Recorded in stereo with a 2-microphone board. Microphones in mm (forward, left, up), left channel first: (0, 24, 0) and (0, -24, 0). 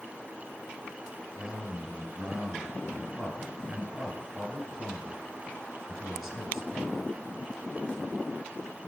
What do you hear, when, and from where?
1.4 s a man speaking: 10° right (ahead or behind), 1.5 m